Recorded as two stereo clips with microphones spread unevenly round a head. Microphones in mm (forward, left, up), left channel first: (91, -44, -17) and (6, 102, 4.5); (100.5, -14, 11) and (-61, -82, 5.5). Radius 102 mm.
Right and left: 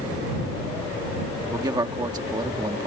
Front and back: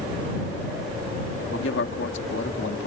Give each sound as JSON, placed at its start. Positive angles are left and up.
{"t": 1.4, "sound": "a man speaking", "azimuth_deg": 55}